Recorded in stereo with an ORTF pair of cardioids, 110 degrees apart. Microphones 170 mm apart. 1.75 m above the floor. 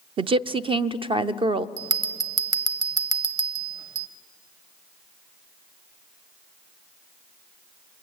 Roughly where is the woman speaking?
Ahead right.